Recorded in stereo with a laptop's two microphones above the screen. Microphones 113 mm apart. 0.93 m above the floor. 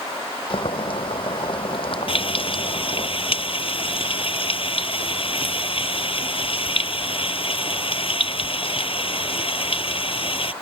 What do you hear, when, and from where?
0.5 s boiling: 50° left (ahead or behind)
2.1 s frying: 55° left (ahead or behind)